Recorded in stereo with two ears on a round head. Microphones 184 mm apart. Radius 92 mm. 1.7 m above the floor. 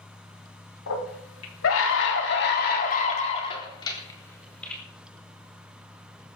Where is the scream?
80° left, 4.5 m; by 4.8 s 5° left (ahead or behind), 4.5 m.